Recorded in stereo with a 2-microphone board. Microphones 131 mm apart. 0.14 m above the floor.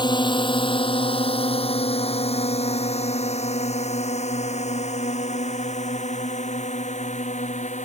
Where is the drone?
35° left (ahead or behind); by 7.9 s 65° left (ahead or behind).